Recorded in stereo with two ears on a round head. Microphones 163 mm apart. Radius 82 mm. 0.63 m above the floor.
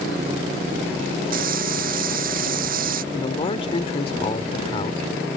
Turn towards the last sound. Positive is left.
turn(degrees=35)  # may be behind; listen again after turning